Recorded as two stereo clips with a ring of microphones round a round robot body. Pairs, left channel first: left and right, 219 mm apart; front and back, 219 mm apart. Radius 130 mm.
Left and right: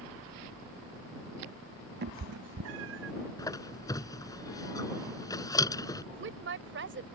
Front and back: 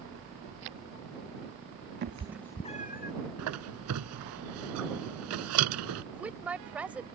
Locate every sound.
2.0 s a cat meowing: 135° right; by 3.1 s 45° right
3.4 s a squeak: 165° left
6.1 s a woman speaking: 95° right